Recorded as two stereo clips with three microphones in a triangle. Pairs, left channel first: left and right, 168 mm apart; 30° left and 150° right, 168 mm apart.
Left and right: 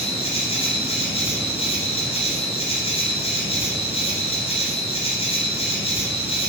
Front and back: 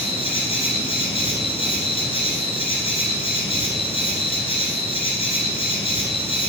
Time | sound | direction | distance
0.0 | an insect | 60° left | 1.8 m